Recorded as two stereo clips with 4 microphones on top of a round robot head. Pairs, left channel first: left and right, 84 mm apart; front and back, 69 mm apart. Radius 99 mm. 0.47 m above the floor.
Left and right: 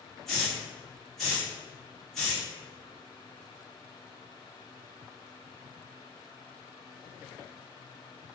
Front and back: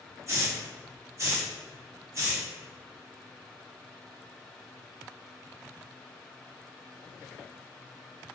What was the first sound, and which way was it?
A hiss, 175° left.